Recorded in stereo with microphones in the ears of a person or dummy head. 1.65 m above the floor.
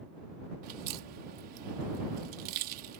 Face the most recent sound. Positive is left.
turn(degrees=-50)  # may be behind; listen again after turning